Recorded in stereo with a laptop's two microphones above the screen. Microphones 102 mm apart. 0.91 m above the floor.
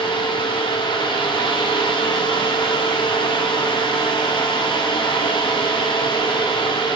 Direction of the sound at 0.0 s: 50° left (ahead or behind).